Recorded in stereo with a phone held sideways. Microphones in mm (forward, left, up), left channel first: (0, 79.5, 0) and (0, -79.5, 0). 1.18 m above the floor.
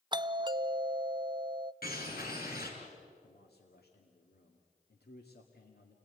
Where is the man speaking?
90° left, 2 m.